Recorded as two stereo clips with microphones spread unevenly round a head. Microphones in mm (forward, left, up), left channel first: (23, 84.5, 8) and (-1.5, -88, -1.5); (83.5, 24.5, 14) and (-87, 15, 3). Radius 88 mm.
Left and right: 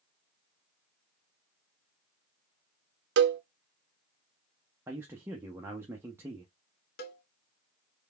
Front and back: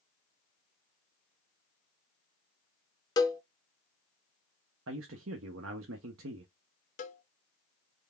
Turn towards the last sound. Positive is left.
turn(degrees=50)